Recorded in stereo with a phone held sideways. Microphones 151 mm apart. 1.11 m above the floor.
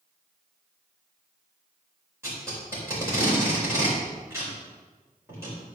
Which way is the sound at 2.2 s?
15° right (ahead or behind).